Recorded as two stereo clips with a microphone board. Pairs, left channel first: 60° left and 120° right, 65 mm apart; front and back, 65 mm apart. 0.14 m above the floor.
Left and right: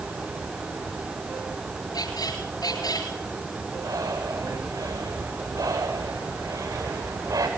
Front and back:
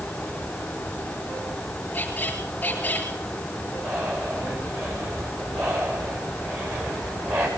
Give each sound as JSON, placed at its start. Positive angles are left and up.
{"t": 1.9, "sound": "a squeak", "azimuth_deg": 65, "distance_m": 8.5}
{"t": 3.8, "sound": "breathing", "azimuth_deg": -135, "distance_m": 9.5}